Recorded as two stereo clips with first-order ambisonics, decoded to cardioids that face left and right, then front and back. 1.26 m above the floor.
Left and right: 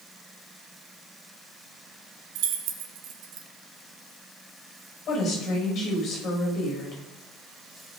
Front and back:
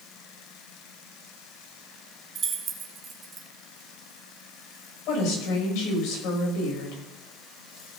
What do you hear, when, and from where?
2.4 s keys jangling: 115° right, 1.4 m
5.1 s a woman speaking: 30° left, 6 m